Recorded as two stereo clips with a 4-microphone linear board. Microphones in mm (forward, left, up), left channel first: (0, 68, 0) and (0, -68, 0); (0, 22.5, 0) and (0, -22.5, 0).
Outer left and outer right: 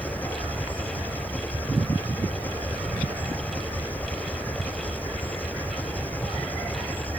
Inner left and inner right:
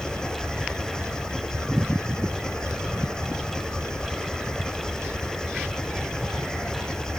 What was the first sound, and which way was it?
An engine running, 15° left (ahead or behind).